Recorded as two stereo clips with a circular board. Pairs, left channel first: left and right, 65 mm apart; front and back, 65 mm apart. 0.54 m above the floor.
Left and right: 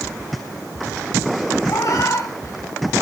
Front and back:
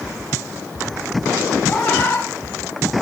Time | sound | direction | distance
1.7 | a cat meowing | 60° left | 2 m